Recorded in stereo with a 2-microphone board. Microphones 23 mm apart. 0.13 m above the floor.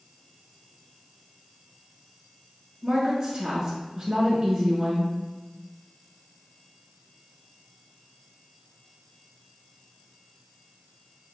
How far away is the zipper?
I don't hear a zipper.